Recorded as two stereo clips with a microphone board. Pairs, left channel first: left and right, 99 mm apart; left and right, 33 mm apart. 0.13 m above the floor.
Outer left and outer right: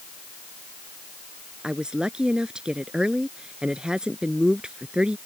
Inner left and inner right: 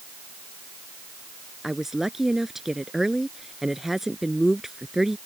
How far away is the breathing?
No breathing in this recording.